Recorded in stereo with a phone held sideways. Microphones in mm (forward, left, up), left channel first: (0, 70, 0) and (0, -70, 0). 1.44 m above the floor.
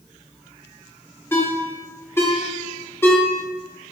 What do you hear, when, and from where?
1.3 s a ringtone: 15° left (ahead or behind), 1.5 m